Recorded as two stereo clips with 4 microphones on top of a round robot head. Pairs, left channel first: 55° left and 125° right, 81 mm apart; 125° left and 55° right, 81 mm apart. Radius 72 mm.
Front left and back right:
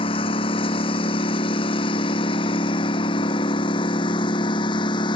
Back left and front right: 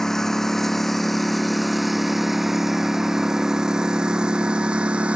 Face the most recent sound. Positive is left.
turn(degrees=25)